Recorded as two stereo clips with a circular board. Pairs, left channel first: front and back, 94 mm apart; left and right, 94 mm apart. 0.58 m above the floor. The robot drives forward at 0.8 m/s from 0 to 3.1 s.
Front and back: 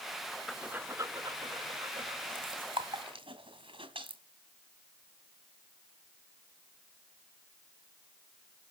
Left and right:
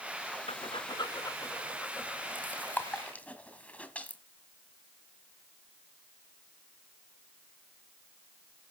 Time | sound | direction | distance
0.5 | breathing | 90° left | 0.5 m